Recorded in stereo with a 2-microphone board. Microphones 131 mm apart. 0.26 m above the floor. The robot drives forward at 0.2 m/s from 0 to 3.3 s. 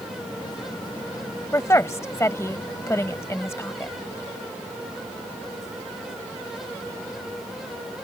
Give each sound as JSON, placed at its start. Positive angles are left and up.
{"t": 1.5, "sound": "a woman speaking", "side_deg": 20}